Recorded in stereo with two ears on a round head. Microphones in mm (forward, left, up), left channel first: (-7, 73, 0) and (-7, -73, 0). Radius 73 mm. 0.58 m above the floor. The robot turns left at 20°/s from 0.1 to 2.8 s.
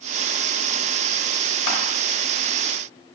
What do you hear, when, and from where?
1.7 s crushing: 75° left (ahead or behind), 1.1 m; by 1.8 s 80° left, 1.1 m